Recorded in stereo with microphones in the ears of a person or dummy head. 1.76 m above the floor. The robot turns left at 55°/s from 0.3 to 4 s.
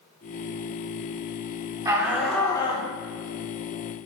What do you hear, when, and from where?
1.9 s a shout: 155° right, 2.5 m; by 2.9 s 145° left, 2.5 m